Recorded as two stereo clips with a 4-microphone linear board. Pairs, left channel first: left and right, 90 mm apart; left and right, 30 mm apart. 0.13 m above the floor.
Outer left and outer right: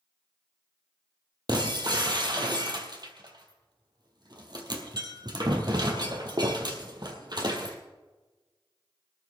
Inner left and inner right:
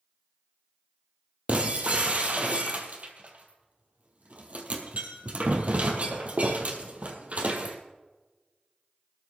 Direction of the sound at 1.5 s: 55° right (ahead or behind).